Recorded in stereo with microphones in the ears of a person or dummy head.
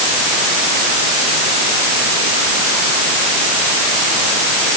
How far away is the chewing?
No chewing in this recording.